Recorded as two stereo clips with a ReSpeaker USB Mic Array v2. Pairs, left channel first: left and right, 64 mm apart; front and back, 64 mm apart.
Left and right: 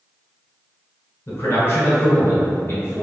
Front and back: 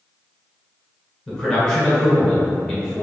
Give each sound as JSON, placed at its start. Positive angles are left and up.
{"t": 1.3, "sound": "a man speaking", "azimuth_deg": 80, "distance_m": 1.2}